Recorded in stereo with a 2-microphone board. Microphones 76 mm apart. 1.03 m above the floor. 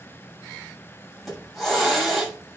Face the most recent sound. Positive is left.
turn(degrees=0)  # may be behind; listen again after turning